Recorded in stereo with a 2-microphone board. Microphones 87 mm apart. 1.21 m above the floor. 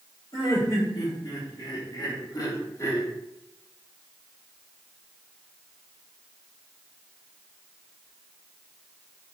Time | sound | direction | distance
0.3 | laughter | 60° left (ahead or behind) | 3 m